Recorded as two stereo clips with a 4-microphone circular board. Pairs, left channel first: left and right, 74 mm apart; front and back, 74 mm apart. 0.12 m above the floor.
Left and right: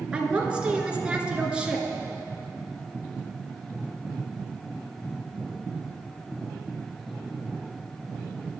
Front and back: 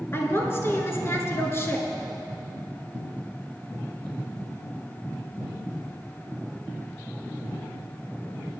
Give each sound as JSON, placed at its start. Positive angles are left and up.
{"t": 0.1, "sound": "a woman speaking", "azimuth_deg": -25, "distance_m": 1.6}